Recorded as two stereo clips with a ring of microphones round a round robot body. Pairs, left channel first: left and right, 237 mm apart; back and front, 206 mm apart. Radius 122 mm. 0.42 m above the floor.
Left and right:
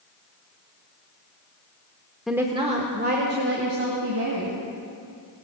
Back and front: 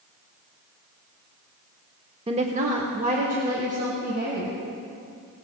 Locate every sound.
2.3 s a woman speaking: straight ahead, 0.8 m; by 4.5 s 55° right, 3 m